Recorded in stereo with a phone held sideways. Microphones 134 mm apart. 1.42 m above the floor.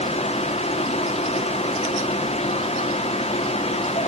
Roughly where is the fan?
Left.